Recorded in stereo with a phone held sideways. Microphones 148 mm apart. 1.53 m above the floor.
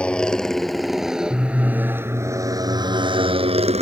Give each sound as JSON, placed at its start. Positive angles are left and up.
{"t": 0.0, "sound": "a motorcycle", "side_deg": 5}